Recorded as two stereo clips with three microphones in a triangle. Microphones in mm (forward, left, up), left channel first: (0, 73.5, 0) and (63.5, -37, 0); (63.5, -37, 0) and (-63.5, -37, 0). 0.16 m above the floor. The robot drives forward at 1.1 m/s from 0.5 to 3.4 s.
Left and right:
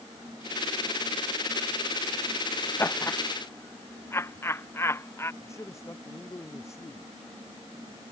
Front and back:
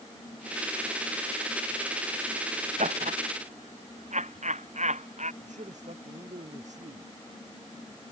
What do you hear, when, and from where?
2.8 s laughter: 170° right
5.4 s a man speaking: 175° right